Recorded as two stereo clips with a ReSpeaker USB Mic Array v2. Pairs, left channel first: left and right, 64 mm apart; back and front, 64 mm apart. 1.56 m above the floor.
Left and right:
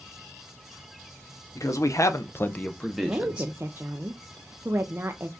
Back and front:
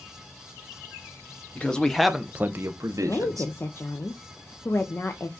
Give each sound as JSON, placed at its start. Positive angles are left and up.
{"t": 1.6, "sound": "a man speaking", "azimuth_deg": 110, "distance_m": 1.0}
{"t": 3.0, "sound": "a woman speaking", "azimuth_deg": -140, "distance_m": 0.6}